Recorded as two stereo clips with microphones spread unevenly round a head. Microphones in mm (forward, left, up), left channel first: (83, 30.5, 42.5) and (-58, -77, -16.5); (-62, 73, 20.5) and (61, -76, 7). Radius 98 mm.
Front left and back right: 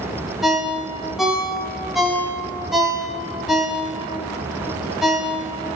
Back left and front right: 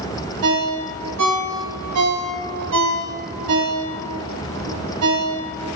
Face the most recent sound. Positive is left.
turn(degrees=-50)